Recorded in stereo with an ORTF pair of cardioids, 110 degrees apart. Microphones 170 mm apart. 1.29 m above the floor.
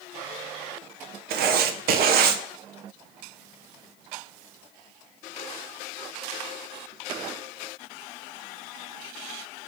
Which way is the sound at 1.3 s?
65° right.